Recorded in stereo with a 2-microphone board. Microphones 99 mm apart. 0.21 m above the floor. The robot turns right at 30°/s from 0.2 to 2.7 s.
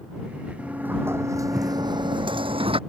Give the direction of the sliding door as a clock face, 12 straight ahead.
6 o'clock.